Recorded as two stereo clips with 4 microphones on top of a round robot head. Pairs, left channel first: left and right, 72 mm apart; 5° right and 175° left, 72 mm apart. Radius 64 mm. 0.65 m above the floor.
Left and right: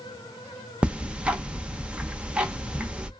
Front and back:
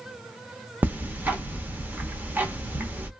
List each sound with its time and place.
0.8 s ticking: 150° right, 0.8 m